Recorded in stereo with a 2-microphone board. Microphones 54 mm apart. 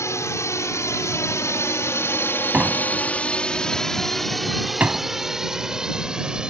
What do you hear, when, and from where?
0.0 s a drone: 65° left (ahead or behind); by 6.5 s 15° right (ahead or behind)
2.5 s a door slam: 30° right (ahead or behind)